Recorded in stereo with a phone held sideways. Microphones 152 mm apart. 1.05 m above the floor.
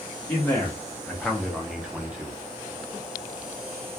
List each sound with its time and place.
0.3 s a man speaking: 15° left (ahead or behind), 0.8 m; by 2.3 s 10° right (ahead or behind), 0.8 m